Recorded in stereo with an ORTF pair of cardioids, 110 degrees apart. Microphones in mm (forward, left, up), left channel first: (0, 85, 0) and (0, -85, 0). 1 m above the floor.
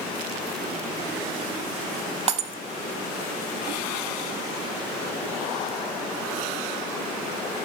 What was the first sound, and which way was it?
Breaking glass, 40° right.